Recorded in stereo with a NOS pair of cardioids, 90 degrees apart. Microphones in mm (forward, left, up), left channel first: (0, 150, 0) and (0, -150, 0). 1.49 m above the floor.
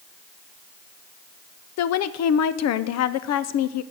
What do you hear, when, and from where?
1.8 s a woman speaking: 60° left, 0.6 m